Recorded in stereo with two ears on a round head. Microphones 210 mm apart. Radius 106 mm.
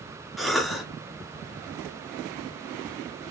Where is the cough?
Centre (ahead or behind), 1.0 m.